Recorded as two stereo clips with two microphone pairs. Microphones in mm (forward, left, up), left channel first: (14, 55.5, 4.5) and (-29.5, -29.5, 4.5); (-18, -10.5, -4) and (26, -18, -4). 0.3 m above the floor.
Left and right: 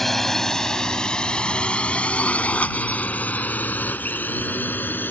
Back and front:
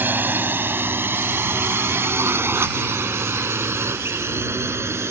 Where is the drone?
25° right; by 5.1 s 5° right.